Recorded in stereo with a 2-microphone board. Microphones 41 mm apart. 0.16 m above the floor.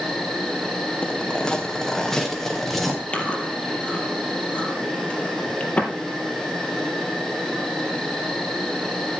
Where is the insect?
5° left (ahead or behind), 4 m.